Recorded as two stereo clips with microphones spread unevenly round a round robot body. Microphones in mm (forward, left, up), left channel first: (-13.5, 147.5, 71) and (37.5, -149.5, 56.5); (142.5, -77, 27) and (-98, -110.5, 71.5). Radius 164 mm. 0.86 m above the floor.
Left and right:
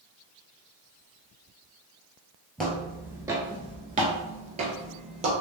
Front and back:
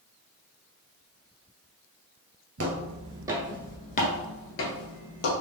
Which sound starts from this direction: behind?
Footsteps, at 2.6 s.